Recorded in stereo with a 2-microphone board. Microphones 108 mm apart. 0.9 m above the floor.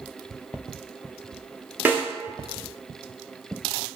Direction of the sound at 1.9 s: 15° right (ahead or behind).